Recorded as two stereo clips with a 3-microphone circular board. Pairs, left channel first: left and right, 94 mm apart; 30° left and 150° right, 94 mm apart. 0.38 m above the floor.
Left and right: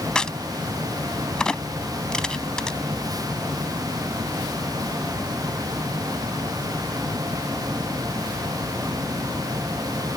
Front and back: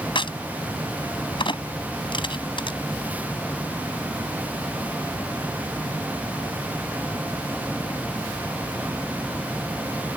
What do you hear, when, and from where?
0.1 s a crack: 10° left